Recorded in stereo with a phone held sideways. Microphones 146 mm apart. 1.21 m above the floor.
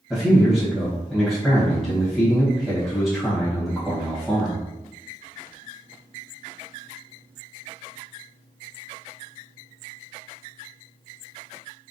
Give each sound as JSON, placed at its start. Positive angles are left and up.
{"t": 0.1, "sound": "a man speaking", "side_deg": 5, "distance_m": 1.0}